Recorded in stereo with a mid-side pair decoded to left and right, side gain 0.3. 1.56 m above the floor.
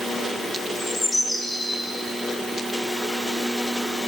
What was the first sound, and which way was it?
A bird, 20° left.